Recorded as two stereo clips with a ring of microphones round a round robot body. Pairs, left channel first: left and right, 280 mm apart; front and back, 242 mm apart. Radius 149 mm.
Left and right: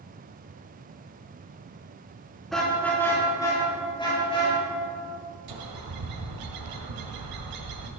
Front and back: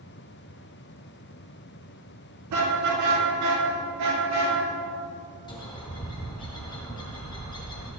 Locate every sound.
2.5 s a car horn: straight behind, 4 m; by 4.6 s 160° left, 6.5 m
5.5 s a bird: 75° right, 1.9 m